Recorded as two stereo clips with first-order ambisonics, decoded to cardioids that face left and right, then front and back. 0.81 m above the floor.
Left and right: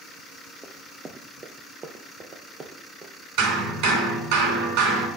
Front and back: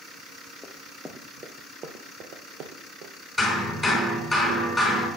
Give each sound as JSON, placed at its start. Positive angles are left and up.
{"t": 0.6, "sound": "running footsteps", "azimuth_deg": -55, "distance_m": 0.8}
{"t": 3.4, "sound": "hammering", "azimuth_deg": -90, "distance_m": 4.0}